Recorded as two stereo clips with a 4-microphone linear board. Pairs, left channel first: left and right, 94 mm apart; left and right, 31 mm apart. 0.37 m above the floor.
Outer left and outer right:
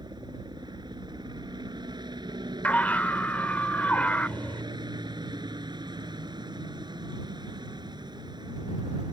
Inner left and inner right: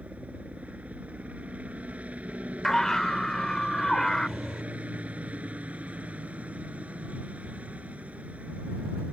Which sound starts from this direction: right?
A helicopter, at 0.0 s.